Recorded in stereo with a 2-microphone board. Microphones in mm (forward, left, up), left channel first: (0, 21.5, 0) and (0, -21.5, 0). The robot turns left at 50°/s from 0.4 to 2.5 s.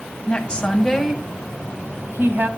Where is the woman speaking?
30° left (ahead or behind), 2 m; by 2.5 s 60° right (ahead or behind), 2 m.